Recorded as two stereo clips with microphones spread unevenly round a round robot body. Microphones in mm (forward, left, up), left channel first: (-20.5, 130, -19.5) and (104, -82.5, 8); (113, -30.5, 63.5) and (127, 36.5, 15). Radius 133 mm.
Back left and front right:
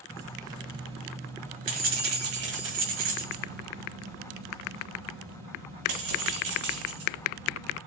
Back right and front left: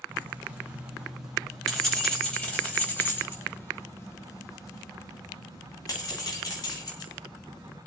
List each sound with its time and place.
0.1 s keys jangling: 20° left, 2.5 m; by 7.8 s 70° right, 4.5 m